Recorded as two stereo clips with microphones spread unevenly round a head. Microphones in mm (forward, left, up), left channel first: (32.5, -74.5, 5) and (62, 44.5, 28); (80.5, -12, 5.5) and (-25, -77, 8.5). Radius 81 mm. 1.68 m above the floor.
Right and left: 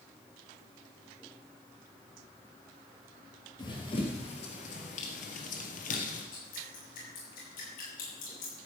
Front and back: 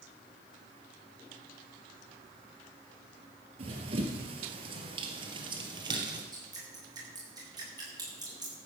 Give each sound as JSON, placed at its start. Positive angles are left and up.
{"t": 3.6, "sound": "running footsteps", "azimuth_deg": -170, "distance_m": 2.0}
{"t": 6.3, "sound": "dripping", "azimuth_deg": -90, "distance_m": 7.0}